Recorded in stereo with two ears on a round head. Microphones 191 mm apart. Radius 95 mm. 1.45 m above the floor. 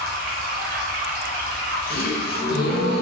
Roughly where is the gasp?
Left.